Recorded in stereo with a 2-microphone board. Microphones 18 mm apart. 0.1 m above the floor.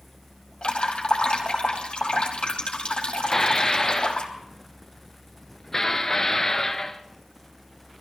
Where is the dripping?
55° left (ahead or behind), 3.5 m.